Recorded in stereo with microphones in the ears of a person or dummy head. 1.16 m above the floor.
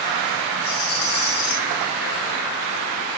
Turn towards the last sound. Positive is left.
turn(degrees=20)  # may be behind; listen again after turning